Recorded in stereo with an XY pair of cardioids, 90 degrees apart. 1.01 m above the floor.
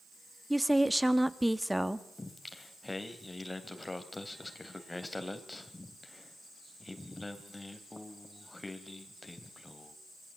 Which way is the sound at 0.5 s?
5° right.